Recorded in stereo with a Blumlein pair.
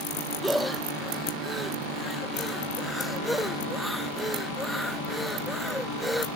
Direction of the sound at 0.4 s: Straight ahead.